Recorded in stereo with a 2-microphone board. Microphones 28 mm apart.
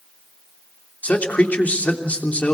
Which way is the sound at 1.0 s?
60° left (ahead or behind).